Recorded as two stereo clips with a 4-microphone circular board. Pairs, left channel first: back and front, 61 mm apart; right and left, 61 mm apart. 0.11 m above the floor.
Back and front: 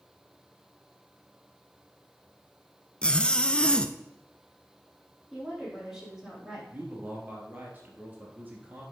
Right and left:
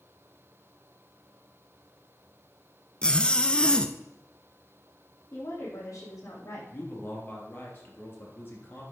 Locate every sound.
3.0 s a zipper: 135° right, 0.6 m
5.3 s a woman speaking: 85° right, 4.5 m
6.7 s a man speaking: 50° right, 2.5 m